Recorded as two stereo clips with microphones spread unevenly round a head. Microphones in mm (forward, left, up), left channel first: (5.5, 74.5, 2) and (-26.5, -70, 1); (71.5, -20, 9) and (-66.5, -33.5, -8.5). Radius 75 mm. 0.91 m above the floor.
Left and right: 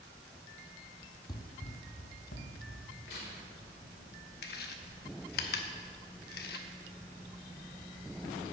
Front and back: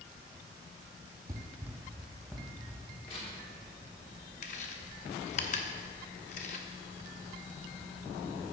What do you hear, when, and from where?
1.3 s running footsteps: 125° left, 1.2 m; by 2.9 s 90° left, 3 m
3.1 s tearing paper: 60° left, 3 m
4.4 s chewing: 50° left, 1.0 m